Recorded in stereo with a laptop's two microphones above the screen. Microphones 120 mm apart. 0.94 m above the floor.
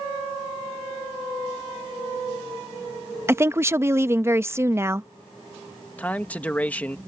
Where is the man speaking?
15° left (ahead or behind).